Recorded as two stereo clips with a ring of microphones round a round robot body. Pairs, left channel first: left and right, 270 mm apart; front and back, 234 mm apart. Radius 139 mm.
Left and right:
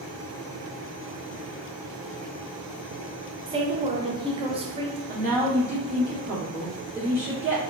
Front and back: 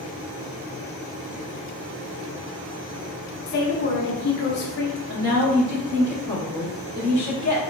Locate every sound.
3.5 s a woman speaking: 25° right, 0.6 m
5.1 s a woman speaking: 155° right, 2.0 m